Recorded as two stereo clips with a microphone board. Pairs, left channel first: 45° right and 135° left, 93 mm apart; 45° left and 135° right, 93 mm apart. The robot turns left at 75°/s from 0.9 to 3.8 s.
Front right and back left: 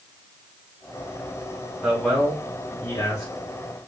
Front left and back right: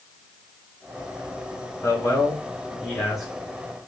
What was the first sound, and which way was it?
A man speaking, 60° left.